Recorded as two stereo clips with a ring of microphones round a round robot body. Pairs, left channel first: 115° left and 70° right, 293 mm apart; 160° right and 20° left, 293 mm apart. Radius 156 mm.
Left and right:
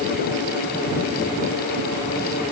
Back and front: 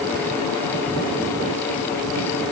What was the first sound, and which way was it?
Only background noise.